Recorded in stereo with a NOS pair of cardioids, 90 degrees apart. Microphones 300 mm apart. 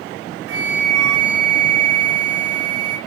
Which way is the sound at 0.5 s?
50° right.